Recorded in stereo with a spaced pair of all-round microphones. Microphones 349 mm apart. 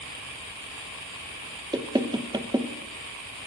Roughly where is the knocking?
Centre.